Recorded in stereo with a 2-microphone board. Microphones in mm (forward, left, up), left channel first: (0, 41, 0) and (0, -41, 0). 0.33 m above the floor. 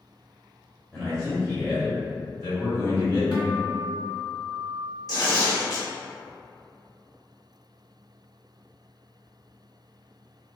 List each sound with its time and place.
0.9 s a man speaking: 5° left (ahead or behind), 1.6 m; by 3.2 s 40° left (ahead or behind), 1.9 m
3.3 s a guitar: 60° left (ahead or behind), 1.3 m
5.1 s tearing paper: 45° left (ahead or behind), 1.5 m